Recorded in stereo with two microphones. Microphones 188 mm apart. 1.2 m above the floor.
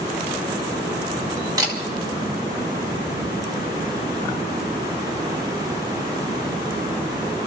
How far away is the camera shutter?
About 2 m.